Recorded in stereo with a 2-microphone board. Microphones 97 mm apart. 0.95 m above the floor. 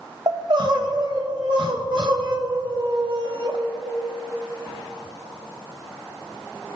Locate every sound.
0.3 s crying: 55° right (ahead or behind), 1.1 m